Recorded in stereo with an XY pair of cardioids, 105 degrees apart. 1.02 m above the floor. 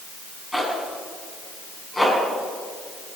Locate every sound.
0.5 s a zipper: 10° left, 6 m